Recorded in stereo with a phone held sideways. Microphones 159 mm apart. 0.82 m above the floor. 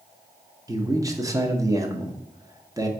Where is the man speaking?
20° right (ahead or behind), 0.7 m.